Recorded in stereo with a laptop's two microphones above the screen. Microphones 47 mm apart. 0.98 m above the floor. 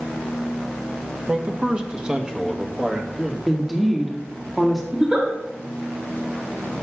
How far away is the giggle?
About 3 m.